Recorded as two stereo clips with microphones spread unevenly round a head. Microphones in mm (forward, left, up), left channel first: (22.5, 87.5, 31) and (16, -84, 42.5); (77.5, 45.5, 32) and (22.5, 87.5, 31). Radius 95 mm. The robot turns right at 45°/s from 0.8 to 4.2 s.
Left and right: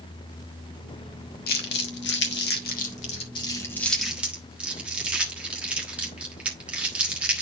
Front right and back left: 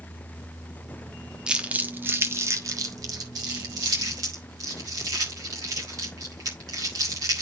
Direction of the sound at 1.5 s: 65° left.